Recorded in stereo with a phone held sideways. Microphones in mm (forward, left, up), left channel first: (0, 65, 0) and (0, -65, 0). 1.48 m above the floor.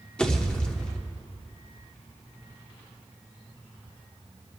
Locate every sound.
0.2 s a pop: 10° left (ahead or behind), 1.1 m